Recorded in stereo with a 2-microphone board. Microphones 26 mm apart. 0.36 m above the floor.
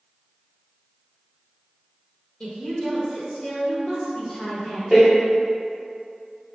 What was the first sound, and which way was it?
A woman speaking, 20° left (ahead or behind).